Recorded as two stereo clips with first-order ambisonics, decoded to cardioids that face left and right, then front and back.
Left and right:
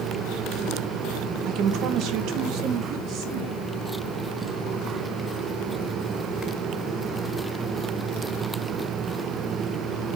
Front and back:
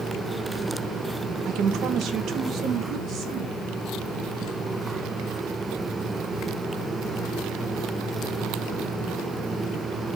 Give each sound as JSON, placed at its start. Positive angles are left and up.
{"t": 1.4, "sound": "a woman speaking", "azimuth_deg": -130, "distance_m": 1.1}